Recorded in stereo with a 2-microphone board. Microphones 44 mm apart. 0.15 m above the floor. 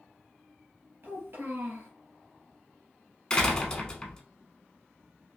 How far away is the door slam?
About 0.7 m.